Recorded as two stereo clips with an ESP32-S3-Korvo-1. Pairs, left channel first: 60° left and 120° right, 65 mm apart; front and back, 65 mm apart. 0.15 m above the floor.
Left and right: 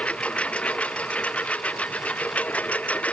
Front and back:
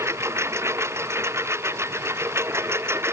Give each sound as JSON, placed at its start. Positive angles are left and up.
{"t": 0.0, "sound": "a lawn mower", "azimuth_deg": 130}